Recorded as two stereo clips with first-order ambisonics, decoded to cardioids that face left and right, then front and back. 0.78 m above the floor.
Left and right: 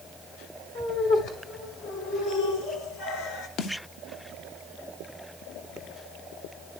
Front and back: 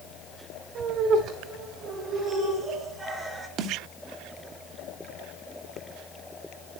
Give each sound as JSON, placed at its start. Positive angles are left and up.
{"t": 0.8, "sound": "laughter", "azimuth_deg": 135, "distance_m": 3.0}
{"t": 3.6, "sound": "a snare drum", "azimuth_deg": 135, "distance_m": 0.7}